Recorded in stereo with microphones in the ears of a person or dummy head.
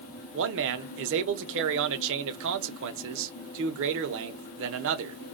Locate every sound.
0.3 s a man speaking: 70° right (ahead or behind), 0.6 m